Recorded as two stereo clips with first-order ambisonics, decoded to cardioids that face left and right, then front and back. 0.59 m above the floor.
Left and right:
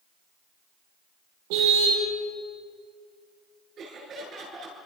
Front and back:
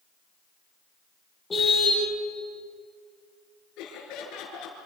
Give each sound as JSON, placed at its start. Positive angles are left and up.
{"t": 1.5, "sound": "a car horn", "azimuth_deg": -75, "distance_m": 8.0}
{"t": 3.8, "sound": "laughter", "azimuth_deg": -35, "distance_m": 8.0}